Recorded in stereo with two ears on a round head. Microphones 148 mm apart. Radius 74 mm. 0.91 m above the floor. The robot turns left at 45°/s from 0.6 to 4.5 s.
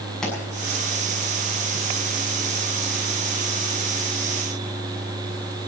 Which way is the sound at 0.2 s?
5° left (ahead or behind).